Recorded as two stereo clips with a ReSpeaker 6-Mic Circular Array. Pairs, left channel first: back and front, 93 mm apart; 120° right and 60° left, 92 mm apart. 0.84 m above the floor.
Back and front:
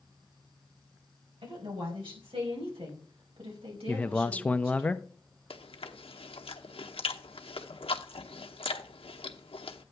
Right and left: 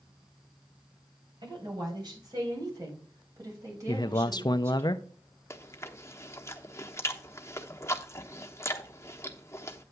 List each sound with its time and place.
1.4 s a woman speaking: 20° left, 4.5 m; by 4.9 s straight ahead, 4.5 m
3.9 s a man speaking: 110° right, 0.5 m
5.5 s chewing: straight behind, 0.9 m